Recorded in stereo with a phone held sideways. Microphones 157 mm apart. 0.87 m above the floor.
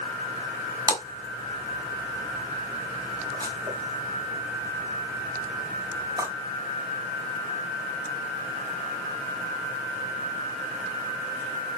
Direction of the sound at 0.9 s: 25° right (ahead or behind).